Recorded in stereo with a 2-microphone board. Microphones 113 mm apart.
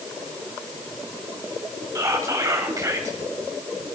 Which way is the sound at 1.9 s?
30° right (ahead or behind).